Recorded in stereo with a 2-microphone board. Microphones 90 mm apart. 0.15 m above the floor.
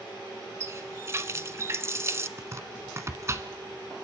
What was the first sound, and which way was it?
A running tap, 35° right (ahead or behind).